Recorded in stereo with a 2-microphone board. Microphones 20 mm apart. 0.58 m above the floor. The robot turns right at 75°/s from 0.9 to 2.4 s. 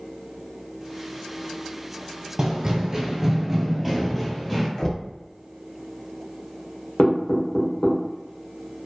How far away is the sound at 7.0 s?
About 1.2 m.